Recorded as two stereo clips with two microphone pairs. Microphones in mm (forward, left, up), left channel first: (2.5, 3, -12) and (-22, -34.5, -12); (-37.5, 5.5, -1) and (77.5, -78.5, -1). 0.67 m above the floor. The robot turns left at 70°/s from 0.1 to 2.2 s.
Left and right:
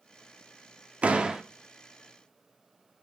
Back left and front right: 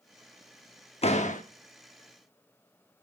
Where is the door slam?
175° right, 0.8 m; by 1.4 s 155° left, 0.8 m.